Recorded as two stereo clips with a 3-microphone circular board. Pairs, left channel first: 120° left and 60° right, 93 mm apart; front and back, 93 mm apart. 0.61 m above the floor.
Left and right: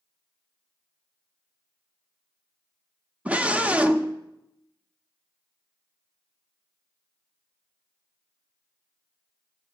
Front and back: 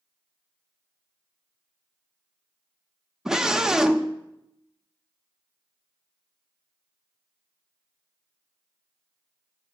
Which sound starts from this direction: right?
A scream, at 3.2 s.